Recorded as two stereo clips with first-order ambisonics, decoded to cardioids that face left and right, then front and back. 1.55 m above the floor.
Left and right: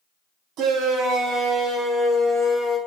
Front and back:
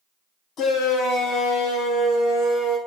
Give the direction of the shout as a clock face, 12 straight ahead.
2 o'clock.